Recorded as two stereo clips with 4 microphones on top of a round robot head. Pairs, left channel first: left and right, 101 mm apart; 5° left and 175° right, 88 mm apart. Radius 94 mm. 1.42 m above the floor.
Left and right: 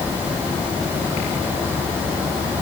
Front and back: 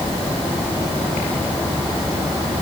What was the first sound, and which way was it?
Only background noise.